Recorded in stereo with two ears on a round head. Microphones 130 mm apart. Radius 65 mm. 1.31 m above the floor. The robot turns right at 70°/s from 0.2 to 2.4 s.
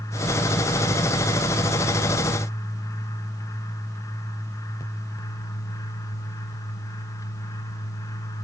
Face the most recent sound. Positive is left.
No sound to turn to.